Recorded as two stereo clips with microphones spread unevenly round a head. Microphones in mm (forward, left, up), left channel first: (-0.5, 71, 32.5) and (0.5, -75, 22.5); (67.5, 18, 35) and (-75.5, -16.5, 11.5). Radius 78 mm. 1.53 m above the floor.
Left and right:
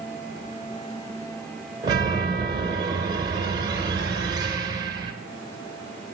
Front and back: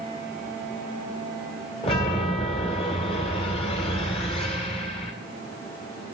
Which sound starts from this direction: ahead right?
A chime, at 1.8 s.